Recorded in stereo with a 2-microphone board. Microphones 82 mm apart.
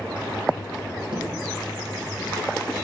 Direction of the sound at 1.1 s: 85° right.